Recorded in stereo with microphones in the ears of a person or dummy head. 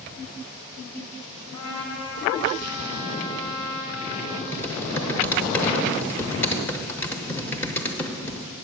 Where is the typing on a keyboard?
15° left (ahead or behind), 0.7 m.